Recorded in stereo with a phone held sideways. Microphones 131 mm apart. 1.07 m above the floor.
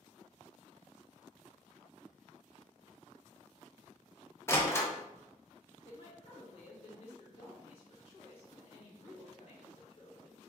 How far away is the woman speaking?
About 1.7 m.